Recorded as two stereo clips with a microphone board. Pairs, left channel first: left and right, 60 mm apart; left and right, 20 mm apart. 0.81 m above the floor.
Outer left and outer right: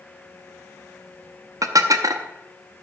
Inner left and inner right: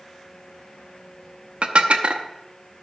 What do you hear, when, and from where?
1.6 s dishes clattering: 70° right (ahead or behind), 0.7 m